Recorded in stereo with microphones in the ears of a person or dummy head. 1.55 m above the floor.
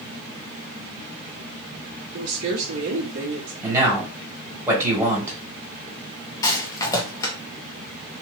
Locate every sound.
2.1 s a woman speaking: 85° right, 1.2 m
3.6 s a man speaking: 20° right (ahead or behind), 1.9 m
6.4 s a rattle: 15° left (ahead or behind), 0.8 m